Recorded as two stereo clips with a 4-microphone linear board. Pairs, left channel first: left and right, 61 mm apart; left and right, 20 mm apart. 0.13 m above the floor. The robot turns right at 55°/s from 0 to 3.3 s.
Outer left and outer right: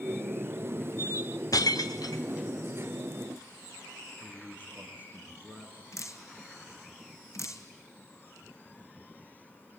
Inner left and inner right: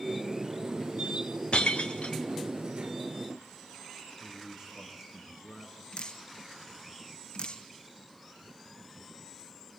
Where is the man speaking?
25° right (ahead or behind), 6 m.